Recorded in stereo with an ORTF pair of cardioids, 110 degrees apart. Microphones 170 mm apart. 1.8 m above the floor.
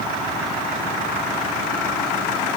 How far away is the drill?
No drill in this recording.